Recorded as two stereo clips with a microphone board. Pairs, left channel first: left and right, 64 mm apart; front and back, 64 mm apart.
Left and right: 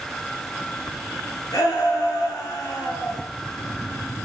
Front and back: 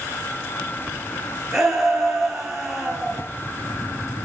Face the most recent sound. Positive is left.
turn(degrees=95)